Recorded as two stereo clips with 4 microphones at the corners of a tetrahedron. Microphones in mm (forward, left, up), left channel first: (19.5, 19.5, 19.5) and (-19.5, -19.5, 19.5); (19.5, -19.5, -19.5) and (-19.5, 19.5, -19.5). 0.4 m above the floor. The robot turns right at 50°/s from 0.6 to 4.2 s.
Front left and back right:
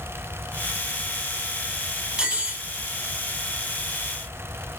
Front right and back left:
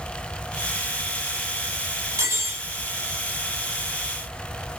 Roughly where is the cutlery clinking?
Behind left.